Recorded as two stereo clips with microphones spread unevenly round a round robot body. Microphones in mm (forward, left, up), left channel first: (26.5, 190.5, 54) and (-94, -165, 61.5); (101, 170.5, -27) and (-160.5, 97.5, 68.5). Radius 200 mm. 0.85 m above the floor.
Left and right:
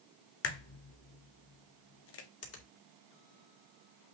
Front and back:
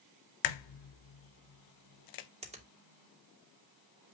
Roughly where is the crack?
Ahead.